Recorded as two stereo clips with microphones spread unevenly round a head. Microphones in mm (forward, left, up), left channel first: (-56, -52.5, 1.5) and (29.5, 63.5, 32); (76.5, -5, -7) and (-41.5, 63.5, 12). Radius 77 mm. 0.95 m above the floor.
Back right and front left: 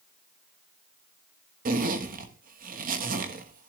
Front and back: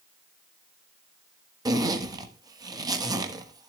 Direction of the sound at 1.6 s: 85° left.